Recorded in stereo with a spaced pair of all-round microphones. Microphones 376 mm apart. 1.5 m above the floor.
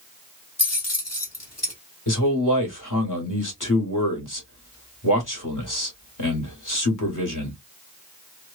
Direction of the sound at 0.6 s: 40° left (ahead or behind).